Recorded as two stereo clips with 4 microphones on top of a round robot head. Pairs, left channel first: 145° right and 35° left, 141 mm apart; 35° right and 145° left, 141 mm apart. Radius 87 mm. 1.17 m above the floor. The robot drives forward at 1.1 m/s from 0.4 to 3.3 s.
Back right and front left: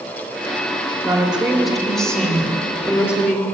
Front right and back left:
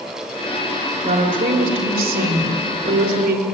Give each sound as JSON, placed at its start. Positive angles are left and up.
{"t": 1.0, "sound": "a woman speaking", "azimuth_deg": 110, "distance_m": 3.0}